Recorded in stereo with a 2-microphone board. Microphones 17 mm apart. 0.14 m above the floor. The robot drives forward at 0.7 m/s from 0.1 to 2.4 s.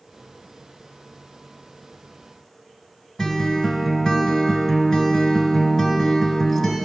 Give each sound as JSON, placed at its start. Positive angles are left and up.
{"t": 3.2, "sound": "a guitar", "side_deg": 30, "distance_m": 0.8}